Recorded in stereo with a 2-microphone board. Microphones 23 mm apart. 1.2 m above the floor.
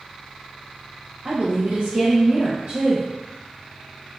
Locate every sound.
1.2 s a woman speaking: 45° right (ahead or behind), 1.1 m